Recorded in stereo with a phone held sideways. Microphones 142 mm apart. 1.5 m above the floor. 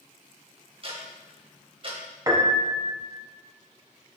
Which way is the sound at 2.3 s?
25° right (ahead or behind).